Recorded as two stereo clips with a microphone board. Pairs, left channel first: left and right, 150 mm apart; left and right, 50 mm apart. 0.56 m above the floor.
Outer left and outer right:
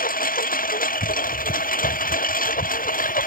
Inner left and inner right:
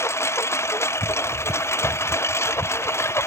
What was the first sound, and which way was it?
A lawn mower, 70° left (ahead or behind).